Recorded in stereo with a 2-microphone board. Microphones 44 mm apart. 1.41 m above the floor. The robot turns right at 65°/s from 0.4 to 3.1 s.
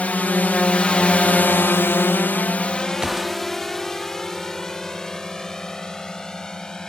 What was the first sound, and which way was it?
A drone, 35° left (ahead or behind).